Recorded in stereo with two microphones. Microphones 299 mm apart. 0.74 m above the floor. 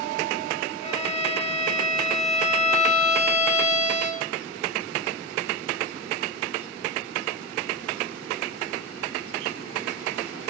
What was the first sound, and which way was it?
A violin, 20° left (ahead or behind).